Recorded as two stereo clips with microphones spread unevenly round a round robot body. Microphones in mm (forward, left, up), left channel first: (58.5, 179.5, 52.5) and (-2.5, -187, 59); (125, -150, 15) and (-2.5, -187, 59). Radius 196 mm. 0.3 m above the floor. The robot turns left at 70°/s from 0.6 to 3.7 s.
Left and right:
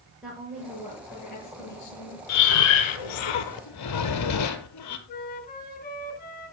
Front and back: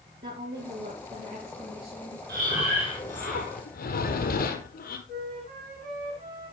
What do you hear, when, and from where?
0.2 s a woman speaking: 170° left, 7.5 m; by 2.2 s 60° left, 7.5 m
2.3 s breathing: 135° left, 1.4 m; by 5.0 s 35° left, 1.4 m
5.1 s a flute: 145° left, 2 m